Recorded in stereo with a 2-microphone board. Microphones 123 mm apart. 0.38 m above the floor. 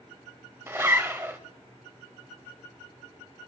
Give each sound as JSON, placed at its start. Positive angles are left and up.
{"t": 0.7, "sound": "a zipper", "side_deg": -20, "distance_m": 1.1}